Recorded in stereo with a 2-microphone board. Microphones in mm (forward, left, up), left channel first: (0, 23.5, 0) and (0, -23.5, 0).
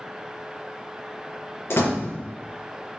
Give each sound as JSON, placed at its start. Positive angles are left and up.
{"t": 1.7, "sound": "a door slam", "side_deg": 65, "distance_m": 3.0}